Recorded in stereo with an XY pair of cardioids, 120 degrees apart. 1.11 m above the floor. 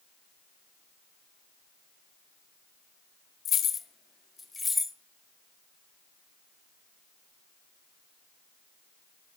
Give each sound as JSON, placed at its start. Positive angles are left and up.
{"t": 3.5, "sound": "keys jangling", "azimuth_deg": 50, "distance_m": 0.8}